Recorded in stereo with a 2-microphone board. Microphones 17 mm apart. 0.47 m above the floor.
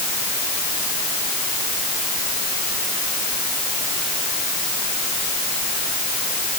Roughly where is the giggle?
I don't hear a giggle.